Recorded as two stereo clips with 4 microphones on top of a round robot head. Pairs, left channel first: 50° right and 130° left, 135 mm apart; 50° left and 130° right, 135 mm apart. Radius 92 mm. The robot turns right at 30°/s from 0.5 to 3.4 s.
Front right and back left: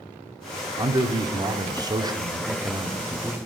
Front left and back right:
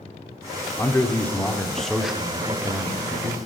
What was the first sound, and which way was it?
A man speaking, 105° left.